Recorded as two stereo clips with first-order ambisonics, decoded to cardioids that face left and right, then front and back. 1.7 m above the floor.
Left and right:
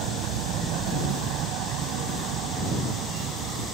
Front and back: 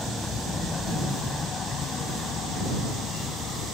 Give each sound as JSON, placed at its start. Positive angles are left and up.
{"t": 0.0, "sound": "a vehicle", "azimuth_deg": -75}